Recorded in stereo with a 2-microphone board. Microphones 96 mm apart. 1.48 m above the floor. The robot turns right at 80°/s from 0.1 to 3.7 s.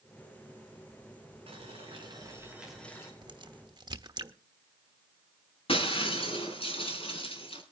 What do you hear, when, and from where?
1.5 s boiling: 100° right, 4.5 m; by 3.1 s 30° left, 4.5 m
3.2 s a crack: 50° right (ahead or behind), 1.1 m; by 4.3 s 45° right (ahead or behind), 1.1 m
5.7 s breaking glass: 70° left (ahead or behind), 3.5 m